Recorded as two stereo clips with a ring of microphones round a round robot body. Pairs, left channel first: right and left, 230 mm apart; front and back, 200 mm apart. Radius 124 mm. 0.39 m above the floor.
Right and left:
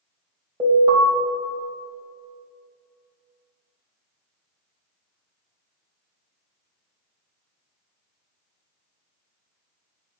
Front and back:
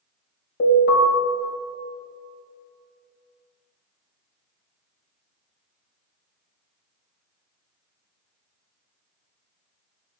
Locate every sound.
0.6 s an alarm: 20° left, 3 m